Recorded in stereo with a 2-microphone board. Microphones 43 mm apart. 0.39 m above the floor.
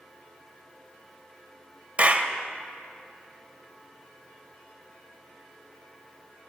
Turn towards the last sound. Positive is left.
turn(degrees=-35)  # may be behind; listen again after turning